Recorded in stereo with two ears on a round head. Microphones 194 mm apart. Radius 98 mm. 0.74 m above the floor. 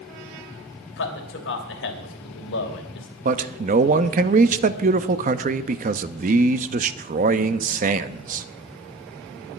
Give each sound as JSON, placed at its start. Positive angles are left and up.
{"t": 1.0, "sound": "a man speaking", "side_deg": 60, "distance_m": 3.0}
{"t": 3.2, "sound": "a man speaking", "side_deg": -35, "distance_m": 0.7}